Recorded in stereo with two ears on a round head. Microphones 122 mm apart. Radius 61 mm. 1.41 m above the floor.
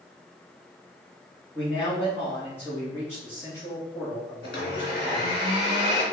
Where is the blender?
80° left, 3 m.